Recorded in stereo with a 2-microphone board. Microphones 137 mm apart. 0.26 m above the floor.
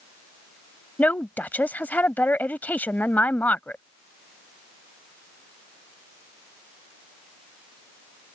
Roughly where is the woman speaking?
Centre.